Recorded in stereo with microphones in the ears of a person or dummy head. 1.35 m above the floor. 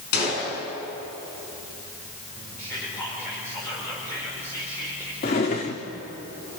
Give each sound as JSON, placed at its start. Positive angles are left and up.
{"t": 0.1, "sound": "a gunshot", "side_deg": 55, "distance_m": 6.5}
{"t": 2.6, "sound": "whispering", "side_deg": 10, "distance_m": 4.5}
{"t": 5.2, "sound": "a drawer", "side_deg": 20, "distance_m": 0.9}